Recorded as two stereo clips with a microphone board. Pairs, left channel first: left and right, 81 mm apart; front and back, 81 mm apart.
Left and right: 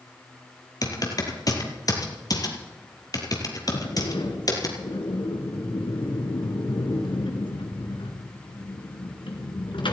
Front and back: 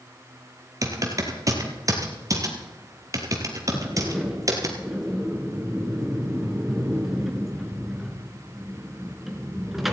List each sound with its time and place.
0.8 s typing on a keyboard: 135° left, 2.5 m
3.7 s a sliding door: 95° left, 2.5 m